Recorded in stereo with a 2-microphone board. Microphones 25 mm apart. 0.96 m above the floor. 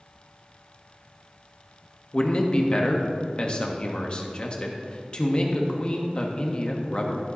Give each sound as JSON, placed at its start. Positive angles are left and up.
{"t": 2.1, "sound": "a man speaking", "side_deg": 35, "distance_m": 1.2}